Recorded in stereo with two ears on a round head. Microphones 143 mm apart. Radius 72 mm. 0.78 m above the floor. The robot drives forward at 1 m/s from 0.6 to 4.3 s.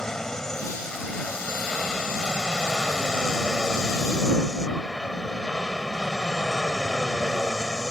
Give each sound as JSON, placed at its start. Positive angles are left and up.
{"t": 0.0, "sound": "an aircraft", "side_deg": 5}